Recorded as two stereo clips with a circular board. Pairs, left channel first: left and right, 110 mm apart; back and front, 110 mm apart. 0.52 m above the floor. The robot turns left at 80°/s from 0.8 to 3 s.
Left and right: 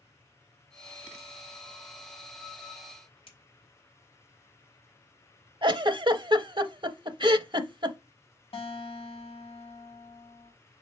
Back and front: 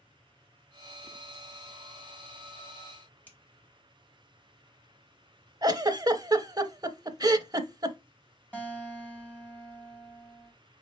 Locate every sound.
3.3 s a finger snap: 110° left, 2 m
5.6 s a giggle: 50° right, 0.6 m
8.5 s a guitar: 105° left, 2 m